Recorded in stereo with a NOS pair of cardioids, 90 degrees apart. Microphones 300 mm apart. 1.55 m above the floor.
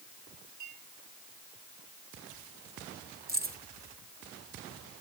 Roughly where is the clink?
Right.